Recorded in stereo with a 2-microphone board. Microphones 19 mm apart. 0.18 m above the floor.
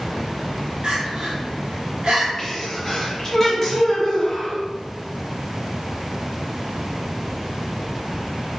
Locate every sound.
0.8 s crying: 65° right (ahead or behind), 1.4 m
2.4 s a sneeze: 20° left (ahead or behind), 1.2 m